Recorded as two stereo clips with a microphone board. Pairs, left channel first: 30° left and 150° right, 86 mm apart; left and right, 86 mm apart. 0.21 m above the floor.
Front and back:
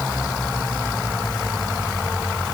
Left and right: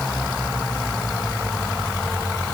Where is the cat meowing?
No cat meowing in this recording.